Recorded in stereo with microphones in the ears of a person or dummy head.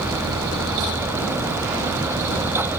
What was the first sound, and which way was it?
Only background noise.